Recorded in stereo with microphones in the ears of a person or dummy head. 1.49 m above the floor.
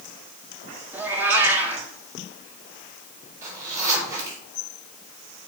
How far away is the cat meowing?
About 1.6 m.